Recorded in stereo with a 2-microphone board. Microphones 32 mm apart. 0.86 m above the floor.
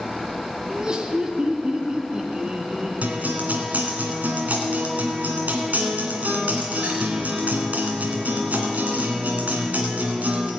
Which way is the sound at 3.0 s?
60° right (ahead or behind).